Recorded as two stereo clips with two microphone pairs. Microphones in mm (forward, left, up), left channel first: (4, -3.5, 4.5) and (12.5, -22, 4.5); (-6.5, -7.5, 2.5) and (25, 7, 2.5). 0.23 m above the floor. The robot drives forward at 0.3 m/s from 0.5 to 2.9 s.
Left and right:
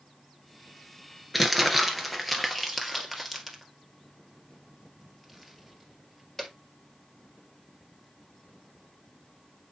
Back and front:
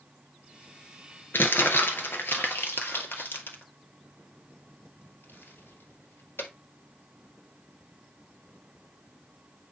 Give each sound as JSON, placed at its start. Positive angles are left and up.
{"t": 1.3, "sound": "crumpling", "azimuth_deg": -150, "distance_m": 1.3}